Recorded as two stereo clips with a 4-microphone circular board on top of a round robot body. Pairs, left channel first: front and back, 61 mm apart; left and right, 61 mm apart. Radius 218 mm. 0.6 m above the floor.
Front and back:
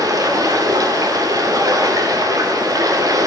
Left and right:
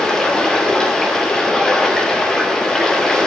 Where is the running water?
170° left, 2 m.